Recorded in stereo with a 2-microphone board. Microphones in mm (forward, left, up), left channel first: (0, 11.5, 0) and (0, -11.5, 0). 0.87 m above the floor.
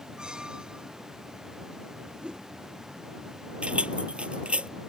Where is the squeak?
40° right (ahead or behind).